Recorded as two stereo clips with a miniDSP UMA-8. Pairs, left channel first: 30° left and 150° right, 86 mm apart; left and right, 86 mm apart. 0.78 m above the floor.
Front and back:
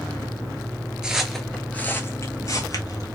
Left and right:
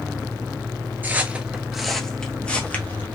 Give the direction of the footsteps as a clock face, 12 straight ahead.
3 o'clock.